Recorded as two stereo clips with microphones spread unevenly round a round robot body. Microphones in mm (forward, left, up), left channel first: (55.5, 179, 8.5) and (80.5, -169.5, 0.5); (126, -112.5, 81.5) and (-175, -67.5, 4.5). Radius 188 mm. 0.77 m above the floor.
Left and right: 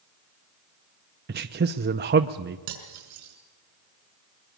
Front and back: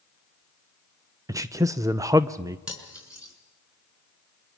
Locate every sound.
1.3 s a man speaking: 135° right, 0.6 m
2.7 s cutlery clinking: 100° right, 5.5 m